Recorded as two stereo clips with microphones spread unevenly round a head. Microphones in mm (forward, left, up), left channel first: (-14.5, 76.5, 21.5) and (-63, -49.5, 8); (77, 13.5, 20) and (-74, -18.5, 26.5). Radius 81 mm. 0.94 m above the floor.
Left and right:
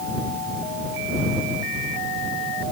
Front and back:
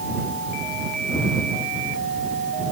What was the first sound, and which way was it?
Only background noise.